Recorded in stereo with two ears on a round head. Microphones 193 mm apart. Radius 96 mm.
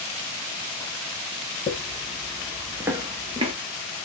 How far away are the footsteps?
About 0.8 m.